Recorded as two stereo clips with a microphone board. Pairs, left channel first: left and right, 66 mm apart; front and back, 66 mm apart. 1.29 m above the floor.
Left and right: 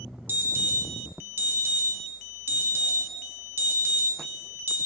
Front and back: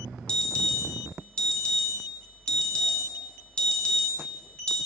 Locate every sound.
0.3 s an alarm: 65° right, 0.8 m